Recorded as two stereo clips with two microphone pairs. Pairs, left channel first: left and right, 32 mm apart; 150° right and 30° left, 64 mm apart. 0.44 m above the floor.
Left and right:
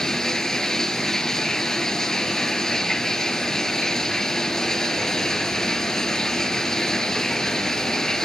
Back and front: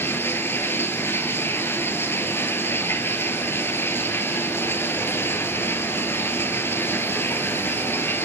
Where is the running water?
165° left, 1.1 m.